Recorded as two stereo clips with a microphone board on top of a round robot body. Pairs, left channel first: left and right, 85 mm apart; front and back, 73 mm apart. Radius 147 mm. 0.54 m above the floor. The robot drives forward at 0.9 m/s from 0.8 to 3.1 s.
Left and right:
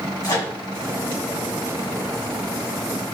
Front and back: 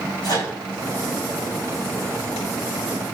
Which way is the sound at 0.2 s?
35° left.